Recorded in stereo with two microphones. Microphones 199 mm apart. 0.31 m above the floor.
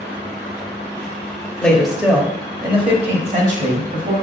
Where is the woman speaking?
5° left (ahead or behind), 1.3 m; by 4.1 s 50° right (ahead or behind), 1.9 m.